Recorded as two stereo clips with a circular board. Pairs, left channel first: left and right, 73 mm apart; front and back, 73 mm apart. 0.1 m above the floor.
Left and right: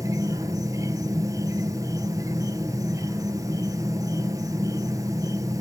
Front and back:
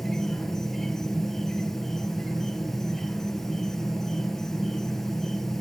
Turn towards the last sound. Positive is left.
turn(degrees=-85)